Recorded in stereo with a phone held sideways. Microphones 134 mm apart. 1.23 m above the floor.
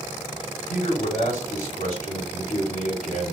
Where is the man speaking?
80° left, 3 m.